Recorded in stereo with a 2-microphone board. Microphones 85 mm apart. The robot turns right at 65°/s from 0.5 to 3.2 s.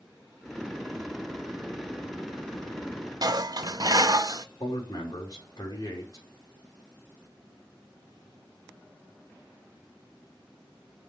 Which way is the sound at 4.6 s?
50° left (ahead or behind).